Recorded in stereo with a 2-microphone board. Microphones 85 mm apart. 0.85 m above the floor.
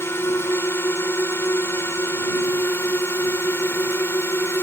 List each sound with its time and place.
0.0 s a drone: 30° left (ahead or behind)